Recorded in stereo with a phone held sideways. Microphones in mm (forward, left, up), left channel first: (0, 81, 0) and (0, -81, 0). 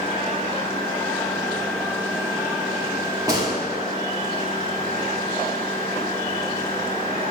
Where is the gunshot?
25° right (ahead or behind), 2.5 m.